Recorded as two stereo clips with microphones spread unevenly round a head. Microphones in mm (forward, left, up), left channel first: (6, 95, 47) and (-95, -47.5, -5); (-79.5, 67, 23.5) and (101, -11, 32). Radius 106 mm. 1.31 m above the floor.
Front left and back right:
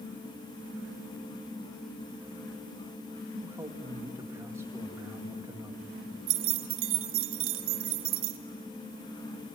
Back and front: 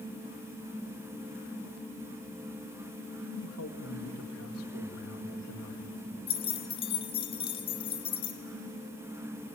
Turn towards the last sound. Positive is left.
turn(degrees=-135)